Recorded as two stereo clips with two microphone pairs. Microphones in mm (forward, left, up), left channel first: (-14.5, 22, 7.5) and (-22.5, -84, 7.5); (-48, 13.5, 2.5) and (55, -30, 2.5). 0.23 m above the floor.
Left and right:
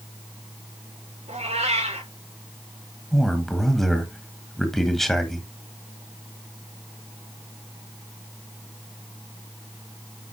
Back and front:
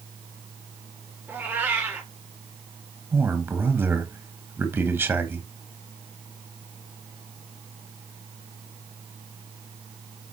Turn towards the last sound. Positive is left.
turn(degrees=0)